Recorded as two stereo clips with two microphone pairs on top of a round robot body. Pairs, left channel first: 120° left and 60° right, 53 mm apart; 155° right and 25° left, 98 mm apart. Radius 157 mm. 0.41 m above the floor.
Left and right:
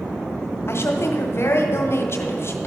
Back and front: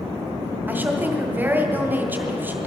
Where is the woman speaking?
95° left, 1.6 m.